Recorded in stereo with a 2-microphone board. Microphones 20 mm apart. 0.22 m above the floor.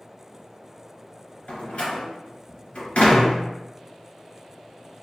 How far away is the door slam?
About 1.7 m.